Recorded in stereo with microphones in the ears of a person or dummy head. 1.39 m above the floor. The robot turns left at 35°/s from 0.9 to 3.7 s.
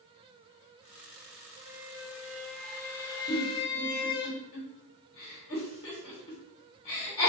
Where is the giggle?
40° left (ahead or behind), 2.5 m; by 7.3 s 30° left (ahead or behind), 2.5 m.